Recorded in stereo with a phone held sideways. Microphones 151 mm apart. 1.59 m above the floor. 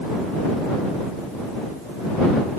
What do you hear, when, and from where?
Only background noise.